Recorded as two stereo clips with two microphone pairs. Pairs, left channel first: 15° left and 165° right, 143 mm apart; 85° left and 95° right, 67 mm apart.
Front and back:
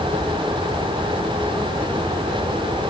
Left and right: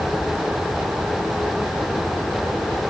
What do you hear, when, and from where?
Only background noise.